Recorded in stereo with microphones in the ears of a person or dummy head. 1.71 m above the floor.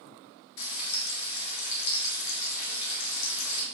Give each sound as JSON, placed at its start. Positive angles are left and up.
{"t": 0.6, "sound": "frying", "side_deg": 70, "distance_m": 1.7}